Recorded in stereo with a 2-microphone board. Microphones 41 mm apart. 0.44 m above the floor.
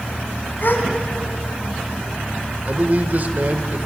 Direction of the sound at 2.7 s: 50° right (ahead or behind).